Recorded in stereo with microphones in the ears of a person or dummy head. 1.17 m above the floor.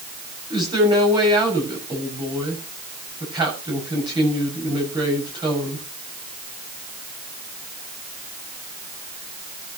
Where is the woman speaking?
25° right (ahead or behind), 7 m.